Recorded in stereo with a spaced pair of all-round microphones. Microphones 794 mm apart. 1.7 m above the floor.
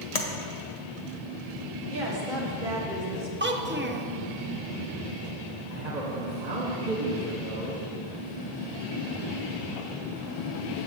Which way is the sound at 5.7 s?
55° right (ahead or behind).